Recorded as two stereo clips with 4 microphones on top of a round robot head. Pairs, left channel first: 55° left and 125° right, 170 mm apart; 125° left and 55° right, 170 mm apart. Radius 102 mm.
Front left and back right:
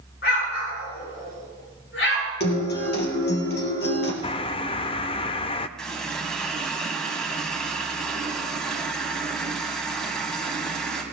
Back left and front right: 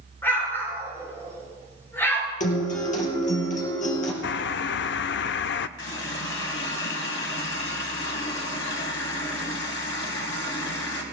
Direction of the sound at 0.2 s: 50° left.